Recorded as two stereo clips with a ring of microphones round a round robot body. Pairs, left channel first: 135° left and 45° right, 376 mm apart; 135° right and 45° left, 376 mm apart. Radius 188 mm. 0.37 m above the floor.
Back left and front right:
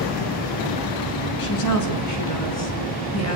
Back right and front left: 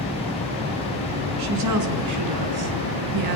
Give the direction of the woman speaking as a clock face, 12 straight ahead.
9 o'clock.